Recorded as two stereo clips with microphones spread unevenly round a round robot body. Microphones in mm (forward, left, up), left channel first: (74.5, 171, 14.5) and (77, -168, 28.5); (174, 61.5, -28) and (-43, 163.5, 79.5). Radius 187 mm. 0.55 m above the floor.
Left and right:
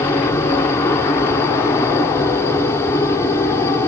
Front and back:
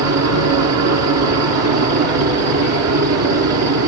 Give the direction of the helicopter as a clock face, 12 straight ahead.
6 o'clock.